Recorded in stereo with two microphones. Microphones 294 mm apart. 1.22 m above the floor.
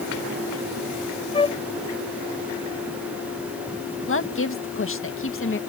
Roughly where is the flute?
Centre.